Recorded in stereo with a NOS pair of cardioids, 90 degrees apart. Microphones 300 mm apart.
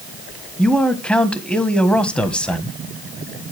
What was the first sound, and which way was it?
A man speaking, 5° left.